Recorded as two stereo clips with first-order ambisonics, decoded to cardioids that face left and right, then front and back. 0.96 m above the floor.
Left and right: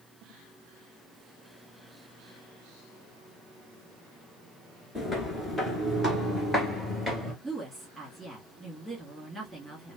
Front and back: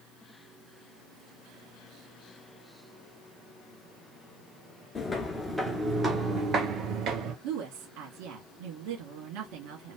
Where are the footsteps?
40° left, 0.9 m; by 7.3 s 170° left, 1.3 m.